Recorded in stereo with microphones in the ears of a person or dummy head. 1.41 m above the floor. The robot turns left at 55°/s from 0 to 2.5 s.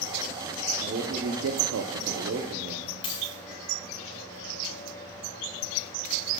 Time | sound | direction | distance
0.8 | a man speaking | 40° right | 0.8 m
3.0 | a dropped coin | 30° left (ahead or behind) | 4.5 m